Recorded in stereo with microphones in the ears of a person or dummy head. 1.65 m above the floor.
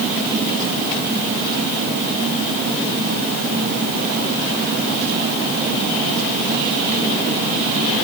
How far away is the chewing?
No chewing in this recording.